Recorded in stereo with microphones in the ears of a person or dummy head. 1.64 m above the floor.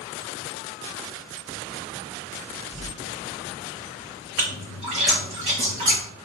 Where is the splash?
35° right (ahead or behind), 0.9 m.